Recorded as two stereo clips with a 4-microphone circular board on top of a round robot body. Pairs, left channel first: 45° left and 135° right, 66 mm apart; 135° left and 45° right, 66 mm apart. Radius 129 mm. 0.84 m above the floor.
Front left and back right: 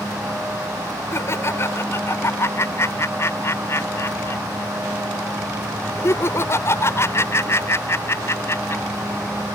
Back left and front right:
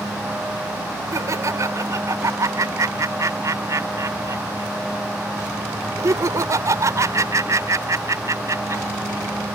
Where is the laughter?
5° right.